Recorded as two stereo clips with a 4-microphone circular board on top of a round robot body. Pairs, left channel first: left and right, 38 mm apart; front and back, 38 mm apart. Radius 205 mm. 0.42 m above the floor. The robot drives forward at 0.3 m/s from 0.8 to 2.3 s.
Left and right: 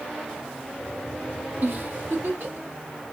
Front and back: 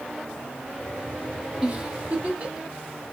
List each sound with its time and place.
1.6 s a giggle: 120° right, 1.2 m; by 2.7 s 125° right, 1.3 m